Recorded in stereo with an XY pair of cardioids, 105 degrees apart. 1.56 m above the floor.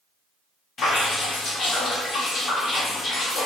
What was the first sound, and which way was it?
Dripping, 55° left.